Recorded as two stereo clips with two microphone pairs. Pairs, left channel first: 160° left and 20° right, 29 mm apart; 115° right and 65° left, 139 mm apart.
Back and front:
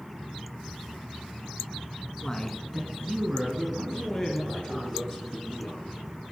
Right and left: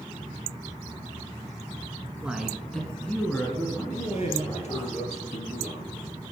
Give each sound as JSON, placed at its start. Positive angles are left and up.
{"t": 2.2, "sound": "a man speaking", "azimuth_deg": 145, "distance_m": 1.5}
{"t": 3.9, "sound": "a man speaking", "azimuth_deg": -125, "distance_m": 2.5}